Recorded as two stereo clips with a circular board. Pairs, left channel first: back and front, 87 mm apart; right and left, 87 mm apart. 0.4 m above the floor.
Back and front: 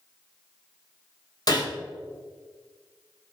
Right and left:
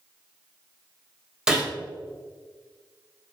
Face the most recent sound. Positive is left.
turn(degrees=170)